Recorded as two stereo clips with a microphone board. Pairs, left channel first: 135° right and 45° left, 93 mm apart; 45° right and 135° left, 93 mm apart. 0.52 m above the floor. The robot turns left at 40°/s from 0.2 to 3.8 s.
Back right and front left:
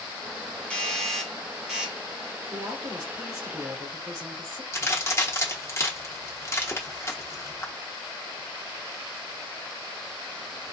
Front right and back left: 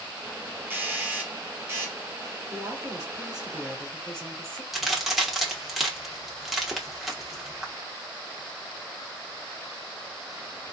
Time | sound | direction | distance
0.7 | a doorbell | 165° left | 1.1 m
2.5 | a woman speaking | 90° left | 2.5 m
4.7 | a crack | 140° right | 1.0 m